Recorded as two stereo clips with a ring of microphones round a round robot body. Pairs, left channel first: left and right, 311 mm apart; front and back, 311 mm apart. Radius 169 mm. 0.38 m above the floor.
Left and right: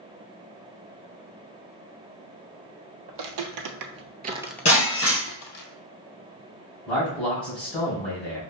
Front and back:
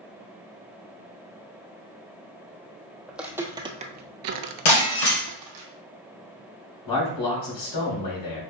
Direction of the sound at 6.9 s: 5° left.